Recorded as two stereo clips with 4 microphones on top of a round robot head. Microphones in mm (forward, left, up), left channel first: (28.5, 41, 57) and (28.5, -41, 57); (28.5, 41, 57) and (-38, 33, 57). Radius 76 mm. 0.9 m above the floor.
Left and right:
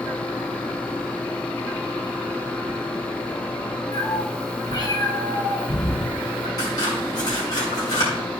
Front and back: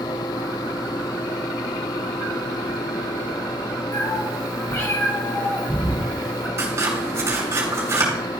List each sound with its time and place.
3.9 s a cat meowing: 40° left, 3.5 m; by 6.5 s 85° left, 3 m
6.6 s scissors: 135° left, 4.5 m